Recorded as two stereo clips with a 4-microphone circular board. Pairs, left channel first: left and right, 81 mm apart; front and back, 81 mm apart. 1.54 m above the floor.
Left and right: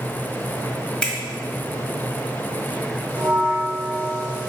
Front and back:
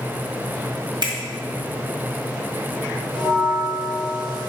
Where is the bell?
20° left, 1.5 m.